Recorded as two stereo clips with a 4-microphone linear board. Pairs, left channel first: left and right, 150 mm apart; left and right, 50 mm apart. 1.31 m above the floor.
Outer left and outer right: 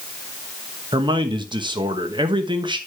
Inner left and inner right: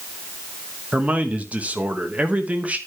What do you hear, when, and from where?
0.9 s a man speaking: 30° right (ahead or behind), 1.1 m